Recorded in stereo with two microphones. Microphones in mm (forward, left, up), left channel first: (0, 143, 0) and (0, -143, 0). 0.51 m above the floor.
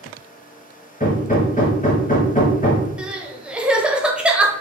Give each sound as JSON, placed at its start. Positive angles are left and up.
{"t": 1.0, "sound": "hammering", "side_deg": 30, "distance_m": 1.0}
{"t": 3.0, "sound": "crying", "side_deg": -5, "distance_m": 0.6}